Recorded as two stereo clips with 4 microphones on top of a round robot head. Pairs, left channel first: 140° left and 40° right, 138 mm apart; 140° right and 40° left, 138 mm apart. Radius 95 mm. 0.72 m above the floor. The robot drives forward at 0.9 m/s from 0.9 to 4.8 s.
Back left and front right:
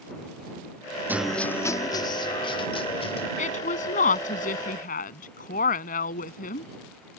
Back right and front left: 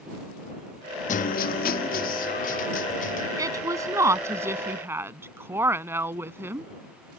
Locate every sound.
1.1 s a guitar: 115° right; by 3.3 s 170° right
3.4 s a woman speaking: 105° left; by 6.7 s 115° left